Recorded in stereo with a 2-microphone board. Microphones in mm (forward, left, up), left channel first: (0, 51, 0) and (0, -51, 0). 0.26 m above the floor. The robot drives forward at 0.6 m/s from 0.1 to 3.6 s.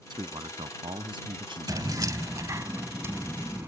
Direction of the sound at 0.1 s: 50° right (ahead or behind).